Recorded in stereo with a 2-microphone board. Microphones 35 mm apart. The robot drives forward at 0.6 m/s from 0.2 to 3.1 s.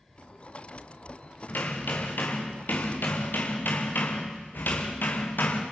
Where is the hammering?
65° left (ahead or behind), 6 m; by 5.6 s 70° left (ahead or behind), 5.5 m.